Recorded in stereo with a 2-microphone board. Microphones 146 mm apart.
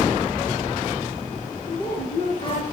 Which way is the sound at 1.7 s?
35° left (ahead or behind).